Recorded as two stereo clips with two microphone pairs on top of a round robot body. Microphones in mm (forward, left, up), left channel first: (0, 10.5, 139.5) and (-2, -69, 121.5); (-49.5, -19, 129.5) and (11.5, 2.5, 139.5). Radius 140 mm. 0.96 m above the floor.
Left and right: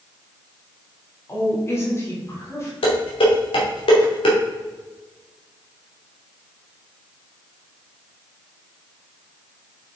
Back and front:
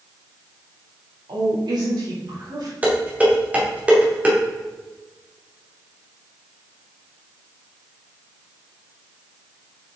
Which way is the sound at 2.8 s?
90° left.